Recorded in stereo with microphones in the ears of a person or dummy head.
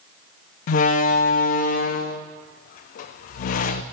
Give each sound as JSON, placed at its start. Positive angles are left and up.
{"t": 0.7, "sound": "a door slam", "side_deg": 50, "distance_m": 0.8}